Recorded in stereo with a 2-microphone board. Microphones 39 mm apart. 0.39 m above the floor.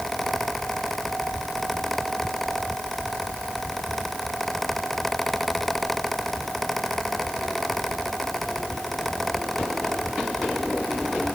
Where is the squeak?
No squeak in this recording.